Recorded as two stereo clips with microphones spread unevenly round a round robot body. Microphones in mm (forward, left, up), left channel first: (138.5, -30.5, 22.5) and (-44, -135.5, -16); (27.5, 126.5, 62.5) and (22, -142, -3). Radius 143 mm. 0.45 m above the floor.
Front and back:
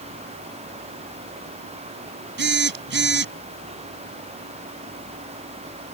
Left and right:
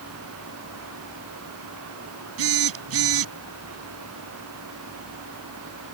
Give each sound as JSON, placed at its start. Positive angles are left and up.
{"t": 2.4, "sound": "a phone buzzing", "azimuth_deg": -120}